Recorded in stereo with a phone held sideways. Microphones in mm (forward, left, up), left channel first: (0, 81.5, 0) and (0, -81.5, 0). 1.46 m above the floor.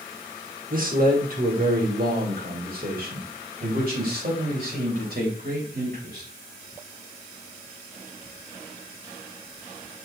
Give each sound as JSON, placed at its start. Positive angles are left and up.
{"t": 0.7, "sound": "a man speaking", "side_deg": -60, "distance_m": 1.9}